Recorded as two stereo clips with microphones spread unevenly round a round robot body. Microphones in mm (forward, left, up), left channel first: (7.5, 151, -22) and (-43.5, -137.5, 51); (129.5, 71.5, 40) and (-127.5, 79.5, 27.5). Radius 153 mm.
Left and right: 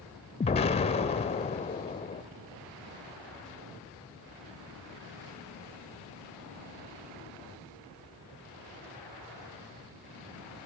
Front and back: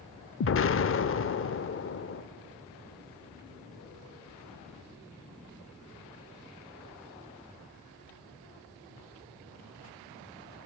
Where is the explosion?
25° left, 0.7 m.